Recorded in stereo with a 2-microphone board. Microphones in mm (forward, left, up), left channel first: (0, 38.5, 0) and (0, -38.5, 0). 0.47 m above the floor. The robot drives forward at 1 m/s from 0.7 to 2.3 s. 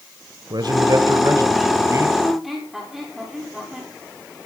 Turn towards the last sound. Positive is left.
turn(degrees=-5)  # may be behind; listen again after turning